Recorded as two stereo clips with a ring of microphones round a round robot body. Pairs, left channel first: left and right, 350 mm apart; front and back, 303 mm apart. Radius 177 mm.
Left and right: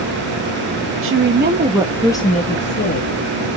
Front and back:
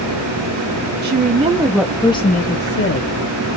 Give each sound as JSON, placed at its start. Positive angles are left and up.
{"t": 1.0, "sound": "a woman speaking", "azimuth_deg": -130, "distance_m": 1.2}